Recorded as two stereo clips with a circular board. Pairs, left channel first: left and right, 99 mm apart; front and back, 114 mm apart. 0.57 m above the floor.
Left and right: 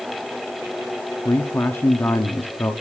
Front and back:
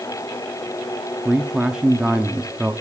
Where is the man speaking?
110° left, 0.9 m.